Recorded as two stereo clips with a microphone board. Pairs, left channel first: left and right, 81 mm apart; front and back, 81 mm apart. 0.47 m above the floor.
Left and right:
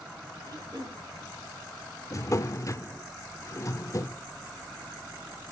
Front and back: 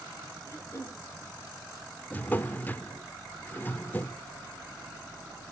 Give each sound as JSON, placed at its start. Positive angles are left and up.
{"t": 0.4, "sound": "throat clearing", "azimuth_deg": -55, "distance_m": 6.0}
{"t": 2.1, "sound": "a drawer", "azimuth_deg": 60, "distance_m": 0.5}